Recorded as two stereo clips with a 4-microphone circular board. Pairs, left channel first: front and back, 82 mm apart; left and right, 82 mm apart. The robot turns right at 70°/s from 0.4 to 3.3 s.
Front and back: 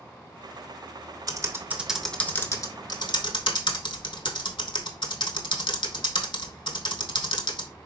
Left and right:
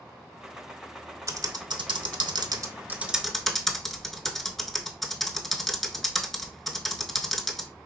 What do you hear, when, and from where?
1.3 s typing on a keyboard: 140° right, 0.6 m; by 7.7 s straight ahead, 0.6 m